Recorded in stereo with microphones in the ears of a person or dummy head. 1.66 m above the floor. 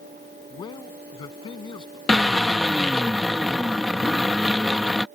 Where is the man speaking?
25° left (ahead or behind).